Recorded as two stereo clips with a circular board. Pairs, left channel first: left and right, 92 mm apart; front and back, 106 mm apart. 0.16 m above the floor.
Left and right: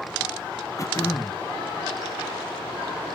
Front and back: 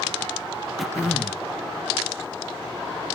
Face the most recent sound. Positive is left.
turn(degrees=90)